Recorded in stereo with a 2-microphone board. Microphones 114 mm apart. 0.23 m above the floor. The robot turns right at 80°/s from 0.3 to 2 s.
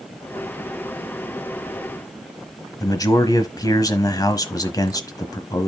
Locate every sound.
2.8 s a man speaking: 35° left (ahead or behind), 1.2 m